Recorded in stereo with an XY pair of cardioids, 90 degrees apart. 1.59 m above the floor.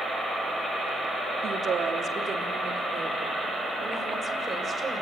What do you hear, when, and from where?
1.4 s a woman speaking: 65° right, 3 m; by 5.0 s 35° right, 7 m